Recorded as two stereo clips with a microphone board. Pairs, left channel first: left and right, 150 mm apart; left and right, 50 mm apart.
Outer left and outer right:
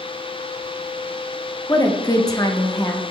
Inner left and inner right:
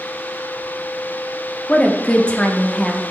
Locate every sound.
1.7 s a woman speaking: 25° left (ahead or behind), 0.8 m